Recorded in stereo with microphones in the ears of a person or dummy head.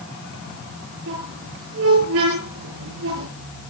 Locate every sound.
1.1 s a squeak: 75° right (ahead or behind), 7 m